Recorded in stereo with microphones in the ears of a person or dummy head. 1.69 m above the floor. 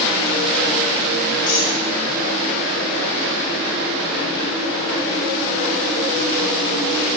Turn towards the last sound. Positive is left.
turn(degrees=65)  # may be behind; listen again after turning